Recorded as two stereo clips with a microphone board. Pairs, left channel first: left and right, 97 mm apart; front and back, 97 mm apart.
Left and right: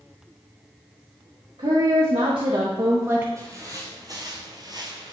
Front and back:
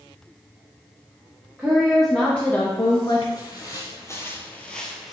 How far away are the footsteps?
About 2.0 m.